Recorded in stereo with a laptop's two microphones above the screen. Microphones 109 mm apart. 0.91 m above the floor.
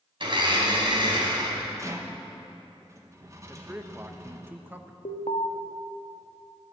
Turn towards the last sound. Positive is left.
turn(degrees=85)